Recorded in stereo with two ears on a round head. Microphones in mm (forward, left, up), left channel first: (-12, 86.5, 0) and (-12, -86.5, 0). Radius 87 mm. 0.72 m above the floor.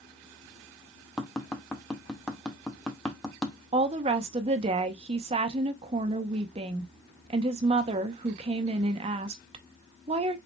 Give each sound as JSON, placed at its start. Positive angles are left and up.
{"t": 1.2, "sound": "tapping", "side_deg": 0, "distance_m": 0.7}
{"t": 3.7, "sound": "a woman speaking", "side_deg": -30, "distance_m": 0.6}